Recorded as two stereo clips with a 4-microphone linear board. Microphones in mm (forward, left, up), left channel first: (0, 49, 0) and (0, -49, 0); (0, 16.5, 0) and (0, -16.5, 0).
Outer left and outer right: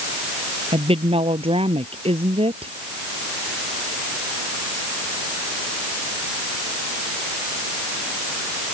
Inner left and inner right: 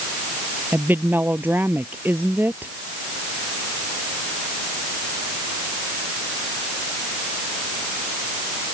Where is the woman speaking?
85° right.